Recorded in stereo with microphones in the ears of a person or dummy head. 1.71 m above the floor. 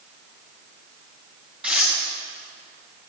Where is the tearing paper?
10° right (ahead or behind), 1.3 m.